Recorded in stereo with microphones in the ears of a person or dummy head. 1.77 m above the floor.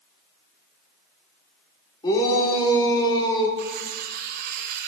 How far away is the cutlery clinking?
About 1.2 m.